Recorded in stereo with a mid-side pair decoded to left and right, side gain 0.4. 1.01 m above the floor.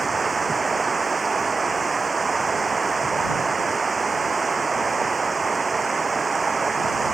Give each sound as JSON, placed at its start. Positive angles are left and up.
{"t": 0.0, "sound": "running water", "azimuth_deg": -30}